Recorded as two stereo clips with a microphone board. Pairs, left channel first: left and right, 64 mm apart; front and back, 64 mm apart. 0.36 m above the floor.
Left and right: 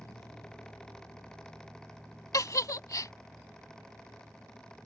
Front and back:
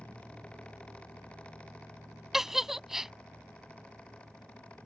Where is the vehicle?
65° left; by 4.9 s 5° right.